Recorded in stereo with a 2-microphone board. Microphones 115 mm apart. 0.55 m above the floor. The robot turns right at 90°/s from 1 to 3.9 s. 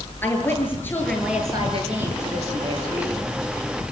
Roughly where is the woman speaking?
Behind.